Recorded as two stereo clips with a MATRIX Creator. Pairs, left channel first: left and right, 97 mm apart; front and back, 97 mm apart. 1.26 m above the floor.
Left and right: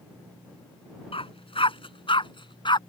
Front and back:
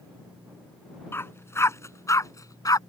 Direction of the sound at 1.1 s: 65° left.